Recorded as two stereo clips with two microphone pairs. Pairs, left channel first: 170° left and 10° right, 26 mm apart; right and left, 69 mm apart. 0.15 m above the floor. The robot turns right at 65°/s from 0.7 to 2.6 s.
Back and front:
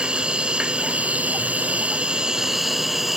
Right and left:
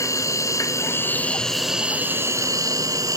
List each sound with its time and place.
0.0 s an insect: 55° right, 0.7 m; by 3.2 s 70° left, 0.7 m